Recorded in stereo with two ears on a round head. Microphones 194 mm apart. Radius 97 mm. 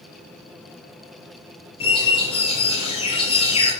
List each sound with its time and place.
1.8 s a bird: 25° left (ahead or behind), 5.5 m